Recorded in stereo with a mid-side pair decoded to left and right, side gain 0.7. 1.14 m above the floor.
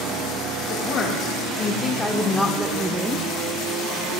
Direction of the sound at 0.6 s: 50° left.